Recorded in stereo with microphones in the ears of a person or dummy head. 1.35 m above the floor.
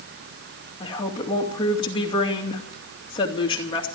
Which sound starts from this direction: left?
A woman speaking, at 0.8 s.